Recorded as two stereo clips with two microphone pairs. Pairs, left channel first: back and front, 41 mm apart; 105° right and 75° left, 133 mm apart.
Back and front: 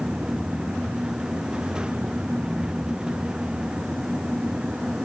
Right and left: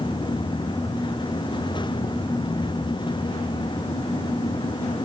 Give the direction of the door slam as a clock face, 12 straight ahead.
I don't hear a door slam.